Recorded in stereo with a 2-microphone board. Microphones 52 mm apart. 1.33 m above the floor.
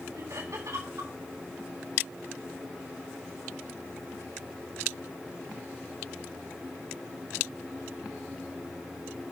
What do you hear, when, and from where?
0.1 s laughter: 85° right, 7 m